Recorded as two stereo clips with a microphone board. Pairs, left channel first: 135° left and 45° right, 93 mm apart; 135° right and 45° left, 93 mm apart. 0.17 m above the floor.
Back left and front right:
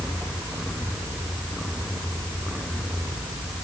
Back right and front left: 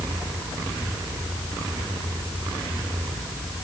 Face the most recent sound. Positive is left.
No sound to turn to.